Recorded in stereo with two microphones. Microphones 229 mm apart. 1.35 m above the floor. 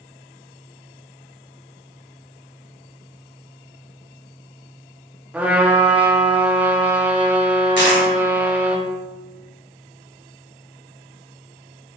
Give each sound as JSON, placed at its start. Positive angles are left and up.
{"t": 5.3, "sound": "a trumpet", "side_deg": -5, "distance_m": 1.1}
{"t": 7.8, "sound": "a dropped coin", "side_deg": 55, "distance_m": 1.9}